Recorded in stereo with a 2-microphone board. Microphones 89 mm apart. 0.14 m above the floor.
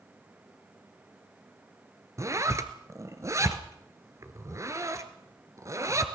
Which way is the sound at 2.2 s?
40° right (ahead or behind).